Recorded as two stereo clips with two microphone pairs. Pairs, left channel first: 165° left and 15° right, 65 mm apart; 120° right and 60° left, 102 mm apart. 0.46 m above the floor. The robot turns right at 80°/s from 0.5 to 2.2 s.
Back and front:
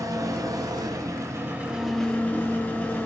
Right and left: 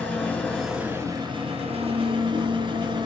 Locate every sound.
0.0 s an engine running: 40° right, 4 m; by 3.1 s 95° left, 4 m